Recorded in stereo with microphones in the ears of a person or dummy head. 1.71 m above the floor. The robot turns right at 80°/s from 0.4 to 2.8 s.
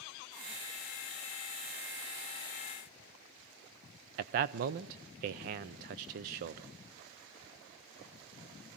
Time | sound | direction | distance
4.2 | a man speaking | 40° right (ahead or behind) | 0.5 m